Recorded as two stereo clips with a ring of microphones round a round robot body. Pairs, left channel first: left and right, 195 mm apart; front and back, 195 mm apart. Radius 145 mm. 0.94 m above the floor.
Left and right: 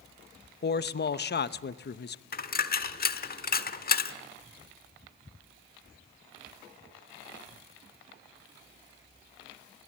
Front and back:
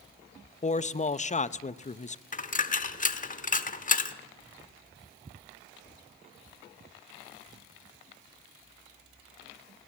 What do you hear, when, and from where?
0.6 s a man speaking: 55° left, 0.8 m
2.3 s a dropped coin: 50° left, 1.4 m